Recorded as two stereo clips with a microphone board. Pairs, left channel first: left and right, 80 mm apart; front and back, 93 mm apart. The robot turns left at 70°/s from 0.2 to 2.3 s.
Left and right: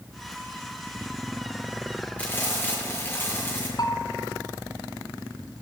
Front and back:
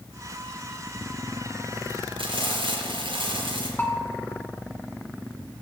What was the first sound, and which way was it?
Frying, 165° left.